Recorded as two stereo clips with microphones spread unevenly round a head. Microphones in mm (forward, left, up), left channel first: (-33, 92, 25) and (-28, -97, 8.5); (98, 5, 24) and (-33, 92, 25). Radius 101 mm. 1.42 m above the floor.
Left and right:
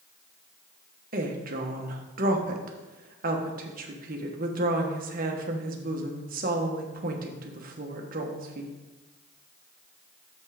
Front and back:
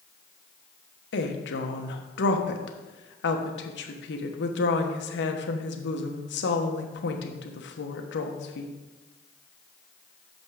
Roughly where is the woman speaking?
Ahead right.